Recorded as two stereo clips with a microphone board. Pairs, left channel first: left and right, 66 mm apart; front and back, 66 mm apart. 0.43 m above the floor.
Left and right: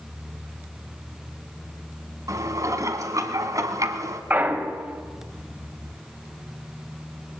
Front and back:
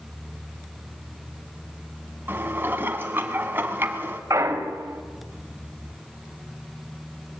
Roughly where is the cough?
No cough in this recording.